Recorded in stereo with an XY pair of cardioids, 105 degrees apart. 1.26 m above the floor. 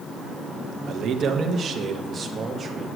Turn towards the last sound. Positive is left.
turn(degrees=-40)